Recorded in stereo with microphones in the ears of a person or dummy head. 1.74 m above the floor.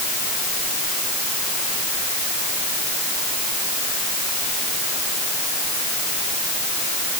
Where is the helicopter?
I don't hear a helicopter.